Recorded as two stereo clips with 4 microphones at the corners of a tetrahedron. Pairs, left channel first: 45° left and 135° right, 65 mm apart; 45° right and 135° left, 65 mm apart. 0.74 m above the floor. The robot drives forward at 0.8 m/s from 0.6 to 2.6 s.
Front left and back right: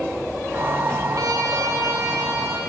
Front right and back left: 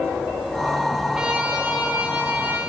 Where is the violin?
150° right, 0.8 m; by 2.6 s 170° right, 1.8 m.